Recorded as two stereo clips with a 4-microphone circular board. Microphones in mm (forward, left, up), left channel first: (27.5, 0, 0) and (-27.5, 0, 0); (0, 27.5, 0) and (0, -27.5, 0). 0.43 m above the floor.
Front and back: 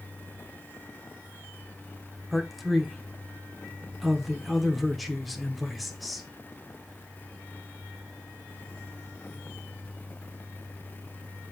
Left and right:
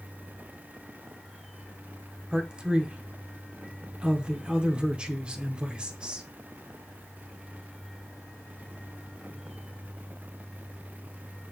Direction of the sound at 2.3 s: 95° right.